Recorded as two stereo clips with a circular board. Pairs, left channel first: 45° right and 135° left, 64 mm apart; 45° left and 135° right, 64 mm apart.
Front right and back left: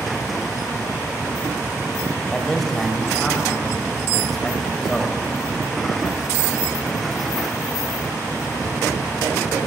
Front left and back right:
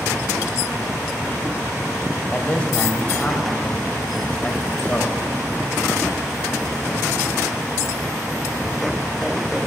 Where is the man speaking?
30° left, 1.5 m.